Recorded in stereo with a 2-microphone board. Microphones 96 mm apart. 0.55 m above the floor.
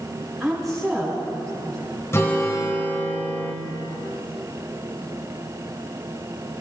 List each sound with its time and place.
0.4 s a woman speaking: centre (ahead or behind), 4.5 m
2.1 s a guitar: 30° left (ahead or behind), 2.5 m